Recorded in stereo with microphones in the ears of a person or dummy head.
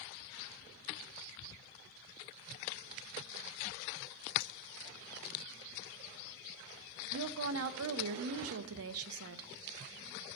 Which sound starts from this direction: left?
A clink, at 4.4 s.